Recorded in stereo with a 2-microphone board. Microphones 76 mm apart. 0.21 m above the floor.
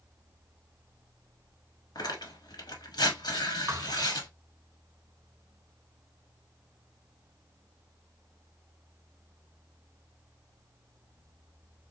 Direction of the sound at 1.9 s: 65° left (ahead or behind).